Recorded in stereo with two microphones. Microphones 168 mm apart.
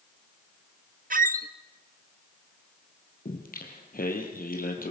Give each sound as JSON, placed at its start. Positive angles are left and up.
{"t": 1.1, "sound": "a squeak", "side_deg": -55, "distance_m": 0.7}
{"t": 3.2, "sound": "singing", "side_deg": 60, "distance_m": 3.5}